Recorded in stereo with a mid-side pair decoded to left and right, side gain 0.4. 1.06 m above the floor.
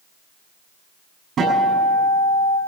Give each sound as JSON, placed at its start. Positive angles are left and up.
{"t": 1.4, "sound": "a guitar", "azimuth_deg": -70, "distance_m": 7.5}